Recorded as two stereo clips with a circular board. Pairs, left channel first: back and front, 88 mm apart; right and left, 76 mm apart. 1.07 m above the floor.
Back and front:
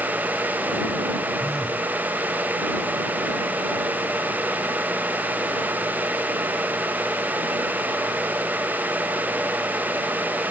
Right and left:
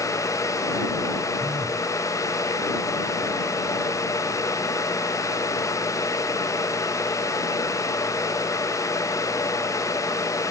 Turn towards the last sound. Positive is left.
turn(degrees=90)